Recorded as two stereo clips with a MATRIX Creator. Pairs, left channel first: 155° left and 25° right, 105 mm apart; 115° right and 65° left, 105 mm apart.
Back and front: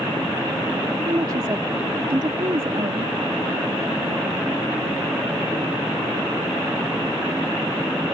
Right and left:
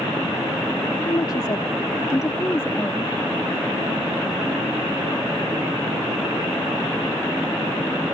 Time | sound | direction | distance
1.1 | a woman speaking | 75° right | ?